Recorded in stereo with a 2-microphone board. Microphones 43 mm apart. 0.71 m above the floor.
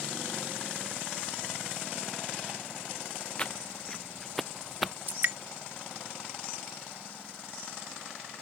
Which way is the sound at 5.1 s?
60° right (ahead or behind).